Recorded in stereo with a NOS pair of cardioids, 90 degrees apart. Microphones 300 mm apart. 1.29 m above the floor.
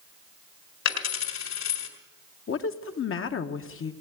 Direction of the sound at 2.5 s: 45° left.